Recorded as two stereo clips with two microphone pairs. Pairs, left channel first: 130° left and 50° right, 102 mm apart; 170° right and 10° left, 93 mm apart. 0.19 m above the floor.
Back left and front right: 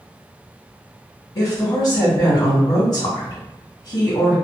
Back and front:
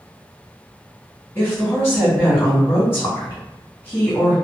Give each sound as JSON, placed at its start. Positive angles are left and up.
{"t": 1.4, "sound": "a woman speaking", "azimuth_deg": 135, "distance_m": 1.9}